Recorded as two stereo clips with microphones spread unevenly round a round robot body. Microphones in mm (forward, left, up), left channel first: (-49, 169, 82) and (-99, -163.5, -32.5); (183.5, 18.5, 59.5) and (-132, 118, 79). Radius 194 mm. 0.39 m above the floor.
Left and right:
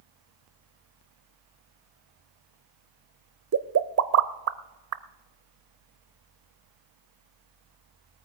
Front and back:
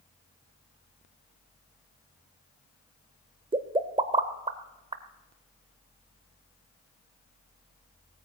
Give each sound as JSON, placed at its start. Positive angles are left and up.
{"t": 3.5, "sound": "a pop", "azimuth_deg": -120, "distance_m": 0.7}